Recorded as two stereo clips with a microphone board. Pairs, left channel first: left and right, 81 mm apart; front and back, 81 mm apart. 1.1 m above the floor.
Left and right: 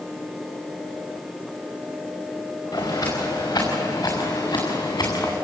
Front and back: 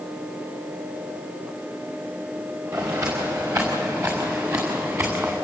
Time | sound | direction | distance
2.7 | footsteps | 135° left | 7 m